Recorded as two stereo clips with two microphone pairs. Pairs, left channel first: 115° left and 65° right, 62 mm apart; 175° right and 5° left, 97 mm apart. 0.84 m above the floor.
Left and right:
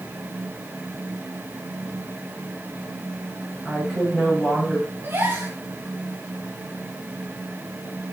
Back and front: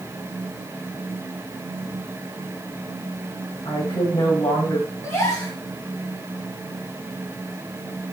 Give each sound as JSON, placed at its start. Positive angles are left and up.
{"t": 3.6, "sound": "a woman speaking", "azimuth_deg": -165, "distance_m": 5.0}
{"t": 5.0, "sound": "a gasp", "azimuth_deg": -120, "distance_m": 3.0}